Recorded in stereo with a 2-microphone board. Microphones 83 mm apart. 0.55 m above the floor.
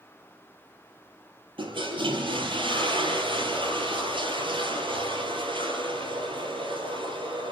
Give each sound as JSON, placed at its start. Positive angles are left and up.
{"t": 1.6, "sound": "a toilet flushing", "side_deg": -75, "distance_m": 4.0}